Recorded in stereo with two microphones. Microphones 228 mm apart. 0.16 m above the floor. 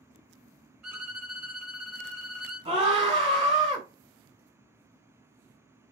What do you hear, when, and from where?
0.8 s a violin: 10° right (ahead or behind), 1.3 m
2.6 s a scream: 25° right (ahead or behind), 1.1 m